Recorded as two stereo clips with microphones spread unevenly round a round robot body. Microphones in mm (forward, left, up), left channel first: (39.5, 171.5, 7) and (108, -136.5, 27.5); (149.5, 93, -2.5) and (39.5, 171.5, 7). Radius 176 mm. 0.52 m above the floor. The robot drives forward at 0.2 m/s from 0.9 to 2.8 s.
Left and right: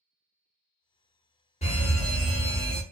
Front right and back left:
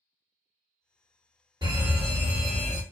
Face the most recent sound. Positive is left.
turn(degrees=140)